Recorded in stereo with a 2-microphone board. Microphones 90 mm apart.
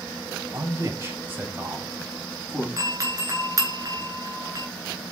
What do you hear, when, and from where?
0.5 s a man speaking: 35° right (ahead or behind), 2.5 m; by 2.7 s 5° right (ahead or behind), 3.5 m
2.8 s a doorbell: 40° right (ahead or behind), 3 m